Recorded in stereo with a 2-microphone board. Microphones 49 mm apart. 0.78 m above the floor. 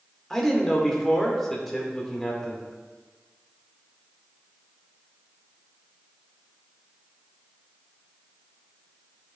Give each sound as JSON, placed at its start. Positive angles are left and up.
{"t": 0.3, "sound": "a man speaking", "side_deg": 10, "distance_m": 2.0}